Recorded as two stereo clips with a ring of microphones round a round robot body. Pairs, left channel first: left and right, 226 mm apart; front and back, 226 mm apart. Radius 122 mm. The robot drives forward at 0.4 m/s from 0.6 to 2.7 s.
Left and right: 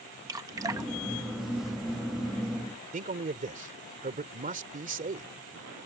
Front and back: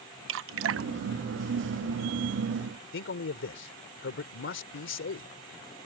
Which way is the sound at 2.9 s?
35° right.